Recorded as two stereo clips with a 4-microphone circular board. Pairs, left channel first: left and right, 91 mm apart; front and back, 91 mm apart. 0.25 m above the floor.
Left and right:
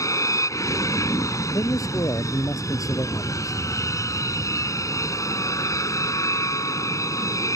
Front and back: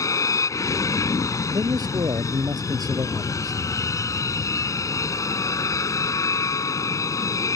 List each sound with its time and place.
0.0 s an aircraft: 45° left
1.5 s a man speaking: 140° left